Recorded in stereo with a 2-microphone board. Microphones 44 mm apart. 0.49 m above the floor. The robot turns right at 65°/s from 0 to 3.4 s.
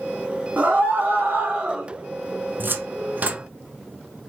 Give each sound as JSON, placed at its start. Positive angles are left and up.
{"t": 0.6, "sound": "a scream", "azimuth_deg": -120, "distance_m": 1.4}
{"t": 2.6, "sound": "a cupboard door", "side_deg": -45, "distance_m": 0.6}